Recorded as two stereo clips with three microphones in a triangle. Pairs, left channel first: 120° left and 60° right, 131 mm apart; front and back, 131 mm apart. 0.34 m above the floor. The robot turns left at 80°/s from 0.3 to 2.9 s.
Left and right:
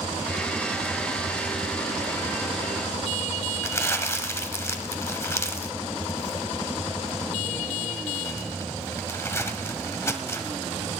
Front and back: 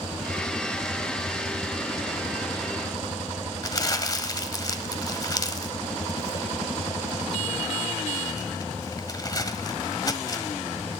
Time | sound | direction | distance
3.6 | crumpling | 55° left | 1.1 m